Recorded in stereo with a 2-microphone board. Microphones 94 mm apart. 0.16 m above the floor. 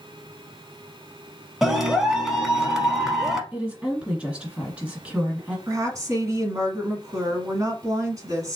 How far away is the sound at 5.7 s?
About 1.5 m.